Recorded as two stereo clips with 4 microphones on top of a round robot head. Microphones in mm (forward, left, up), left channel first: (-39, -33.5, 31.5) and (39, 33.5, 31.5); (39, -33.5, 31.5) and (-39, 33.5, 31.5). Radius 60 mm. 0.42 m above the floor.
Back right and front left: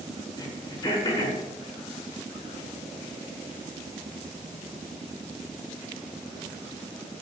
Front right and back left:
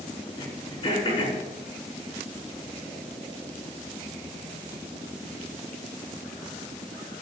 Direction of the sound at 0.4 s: 85° right.